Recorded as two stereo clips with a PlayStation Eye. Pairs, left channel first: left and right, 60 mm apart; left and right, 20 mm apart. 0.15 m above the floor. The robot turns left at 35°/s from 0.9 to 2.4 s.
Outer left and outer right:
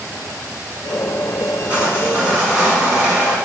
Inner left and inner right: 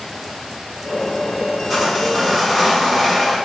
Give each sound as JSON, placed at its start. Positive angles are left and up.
{"t": 1.7, "sound": "sawing", "side_deg": -25, "distance_m": 1.5}